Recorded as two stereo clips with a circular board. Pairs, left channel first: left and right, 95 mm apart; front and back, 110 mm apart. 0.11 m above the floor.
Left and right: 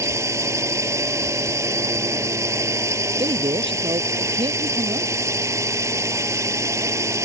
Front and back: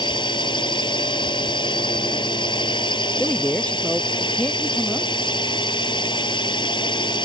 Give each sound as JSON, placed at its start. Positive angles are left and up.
{"t": 0.0, "sound": "a drone", "azimuth_deg": -35}
{"t": 3.2, "sound": "a man speaking", "azimuth_deg": -80}